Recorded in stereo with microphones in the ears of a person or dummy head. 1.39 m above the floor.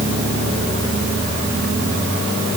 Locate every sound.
Only background noise.